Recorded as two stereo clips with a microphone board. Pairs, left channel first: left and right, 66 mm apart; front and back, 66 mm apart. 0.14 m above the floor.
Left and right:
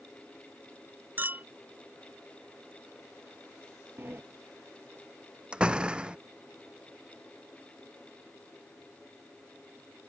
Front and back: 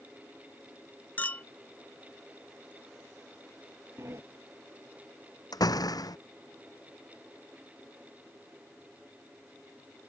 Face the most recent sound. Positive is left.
turn(degrees=-15)